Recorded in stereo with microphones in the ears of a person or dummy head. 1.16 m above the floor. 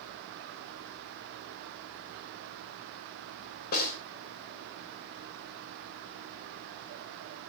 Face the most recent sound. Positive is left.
turn(degrees=50)  # may be behind; listen again after turning